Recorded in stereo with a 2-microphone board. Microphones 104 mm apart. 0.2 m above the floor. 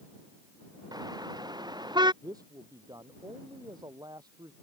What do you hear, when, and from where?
0.9 s a car horn: 40° right (ahead or behind); by 2.1 s 45° right (ahead or behind)
2.2 s a man speaking: 40° right (ahead or behind)